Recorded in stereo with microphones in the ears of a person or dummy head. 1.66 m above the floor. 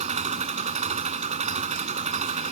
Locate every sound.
0.0 s an engine running: 40° right (ahead or behind)